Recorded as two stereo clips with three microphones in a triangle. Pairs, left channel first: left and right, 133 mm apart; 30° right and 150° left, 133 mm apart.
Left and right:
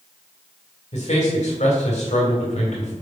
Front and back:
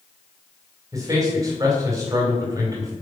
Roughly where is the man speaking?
Left.